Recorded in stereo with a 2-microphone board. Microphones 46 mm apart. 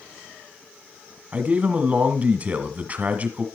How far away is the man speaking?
About 1.5 m.